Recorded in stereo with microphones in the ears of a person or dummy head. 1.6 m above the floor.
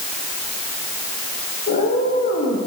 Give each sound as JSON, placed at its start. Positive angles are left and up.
{"t": 1.7, "sound": "a cat meowing", "side_deg": 40, "distance_m": 6.5}